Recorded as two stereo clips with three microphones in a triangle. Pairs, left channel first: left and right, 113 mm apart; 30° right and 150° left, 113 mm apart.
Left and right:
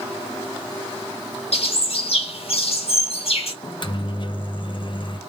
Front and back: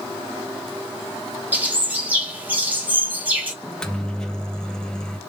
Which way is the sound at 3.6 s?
50° left.